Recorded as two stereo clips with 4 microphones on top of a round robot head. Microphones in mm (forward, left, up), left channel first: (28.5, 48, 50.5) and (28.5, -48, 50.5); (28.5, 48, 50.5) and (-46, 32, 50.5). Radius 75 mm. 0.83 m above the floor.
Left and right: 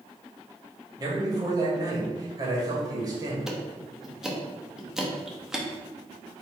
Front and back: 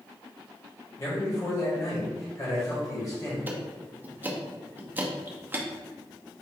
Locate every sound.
1.0 s a man speaking: 40° right, 1.7 m
3.5 s ticking: 170° right, 0.8 m